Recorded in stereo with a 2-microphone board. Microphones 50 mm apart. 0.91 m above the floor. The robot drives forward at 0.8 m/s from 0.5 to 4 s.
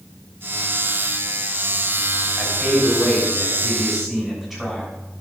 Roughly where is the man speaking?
Centre.